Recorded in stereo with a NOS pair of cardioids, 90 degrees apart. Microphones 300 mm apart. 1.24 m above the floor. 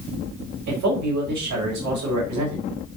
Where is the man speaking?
65° right, 5 m.